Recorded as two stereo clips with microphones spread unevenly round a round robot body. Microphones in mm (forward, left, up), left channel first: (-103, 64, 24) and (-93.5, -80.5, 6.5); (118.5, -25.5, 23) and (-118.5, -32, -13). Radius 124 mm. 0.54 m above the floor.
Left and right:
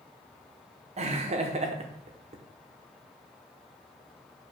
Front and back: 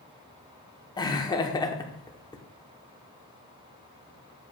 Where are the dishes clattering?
No dishes clattering in this recording.